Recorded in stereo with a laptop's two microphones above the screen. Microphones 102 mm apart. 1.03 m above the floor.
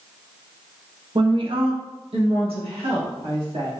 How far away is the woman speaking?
About 0.6 m.